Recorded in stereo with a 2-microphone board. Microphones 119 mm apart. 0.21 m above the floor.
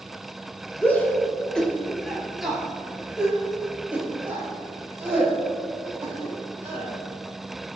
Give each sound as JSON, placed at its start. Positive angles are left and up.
{"t": 0.8, "sound": "a shout", "side_deg": 15, "distance_m": 3.0}